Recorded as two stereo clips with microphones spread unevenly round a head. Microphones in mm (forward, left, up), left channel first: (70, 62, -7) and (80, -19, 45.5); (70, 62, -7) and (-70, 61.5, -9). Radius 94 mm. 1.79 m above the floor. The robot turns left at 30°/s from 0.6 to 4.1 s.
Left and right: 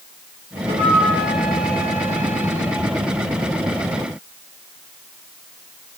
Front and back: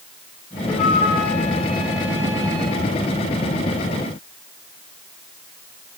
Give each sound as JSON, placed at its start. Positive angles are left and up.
{"t": 0.7, "sound": "a flute", "azimuth_deg": -90, "distance_m": 5.5}